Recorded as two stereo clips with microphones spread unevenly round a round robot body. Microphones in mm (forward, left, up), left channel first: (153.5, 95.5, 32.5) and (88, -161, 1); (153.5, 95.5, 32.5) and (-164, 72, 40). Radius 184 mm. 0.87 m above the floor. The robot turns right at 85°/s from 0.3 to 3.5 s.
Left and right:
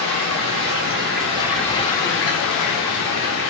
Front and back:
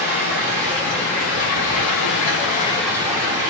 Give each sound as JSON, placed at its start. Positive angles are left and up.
{"t": 0.0, "sound": "running water", "azimuth_deg": -125, "distance_m": 1.4}